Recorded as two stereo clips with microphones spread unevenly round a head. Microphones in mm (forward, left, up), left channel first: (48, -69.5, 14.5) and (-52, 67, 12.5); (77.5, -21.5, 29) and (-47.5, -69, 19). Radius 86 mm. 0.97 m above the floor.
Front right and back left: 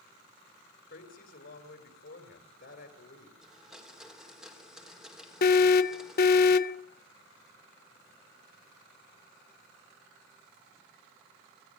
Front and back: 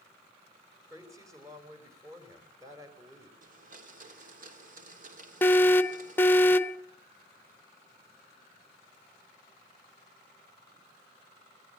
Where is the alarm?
55° right, 0.8 m.